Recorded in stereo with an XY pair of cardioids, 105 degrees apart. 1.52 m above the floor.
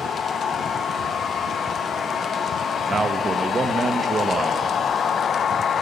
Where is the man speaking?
30° right, 1.7 m.